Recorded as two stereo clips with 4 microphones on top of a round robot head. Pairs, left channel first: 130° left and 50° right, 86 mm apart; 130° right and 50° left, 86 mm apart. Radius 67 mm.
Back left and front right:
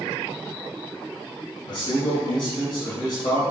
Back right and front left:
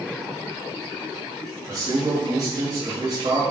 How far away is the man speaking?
About 4 m.